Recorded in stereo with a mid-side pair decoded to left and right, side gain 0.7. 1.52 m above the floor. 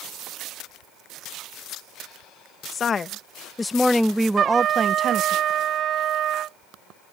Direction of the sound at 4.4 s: 45° right.